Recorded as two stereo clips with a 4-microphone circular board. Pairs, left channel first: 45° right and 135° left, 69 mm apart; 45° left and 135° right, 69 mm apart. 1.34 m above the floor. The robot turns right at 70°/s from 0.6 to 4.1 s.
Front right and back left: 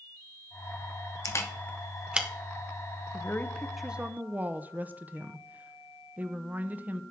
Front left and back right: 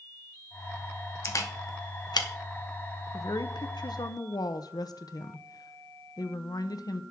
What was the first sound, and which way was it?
A camera shutter, 5° right.